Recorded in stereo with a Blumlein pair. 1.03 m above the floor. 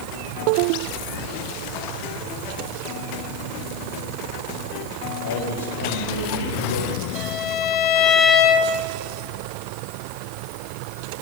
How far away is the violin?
About 2.5 m.